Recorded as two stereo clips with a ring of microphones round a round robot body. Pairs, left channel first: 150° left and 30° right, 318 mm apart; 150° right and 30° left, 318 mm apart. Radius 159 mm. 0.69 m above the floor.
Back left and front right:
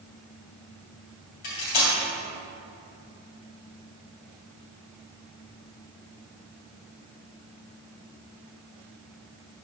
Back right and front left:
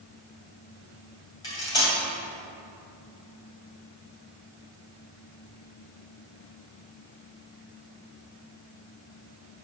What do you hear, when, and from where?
1.4 s cutlery clinking: 130° left, 2 m